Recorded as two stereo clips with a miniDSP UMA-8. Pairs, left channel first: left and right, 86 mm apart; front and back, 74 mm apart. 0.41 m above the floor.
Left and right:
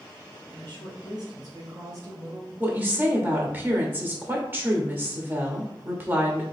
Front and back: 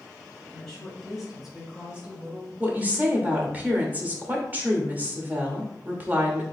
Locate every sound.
0.5 s a woman speaking: 80° right, 2.5 m; by 2.5 s 130° right, 1.6 m
2.6 s a woman speaking: 135° right, 1.0 m